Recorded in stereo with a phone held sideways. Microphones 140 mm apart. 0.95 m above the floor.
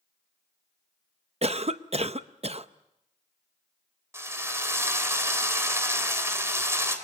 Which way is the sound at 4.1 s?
20° right (ahead or behind).